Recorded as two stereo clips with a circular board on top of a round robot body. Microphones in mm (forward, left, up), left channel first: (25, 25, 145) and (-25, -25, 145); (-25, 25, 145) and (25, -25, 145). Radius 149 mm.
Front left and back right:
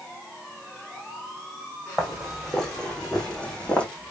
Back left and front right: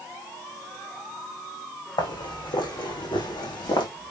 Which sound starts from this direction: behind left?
Footsteps, at 2.0 s.